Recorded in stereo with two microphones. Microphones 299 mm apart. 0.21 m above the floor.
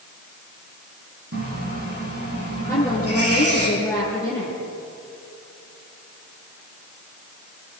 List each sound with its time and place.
1.3 s a running tap: 50° right (ahead or behind), 7.5 m
2.7 s a woman speaking: 5° left (ahead or behind), 5.5 m